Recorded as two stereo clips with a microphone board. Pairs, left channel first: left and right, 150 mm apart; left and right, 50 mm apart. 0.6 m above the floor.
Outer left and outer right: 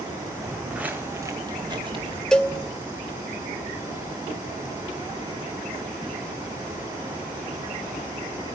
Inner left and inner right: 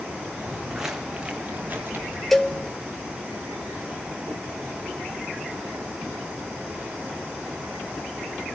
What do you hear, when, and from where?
0.4 s footsteps: centre (ahead or behind), 2.0 m; by 2.2 s 40° right (ahead or behind), 2.5 m
2.3 s a cowbell: 5° left (ahead or behind), 1.6 m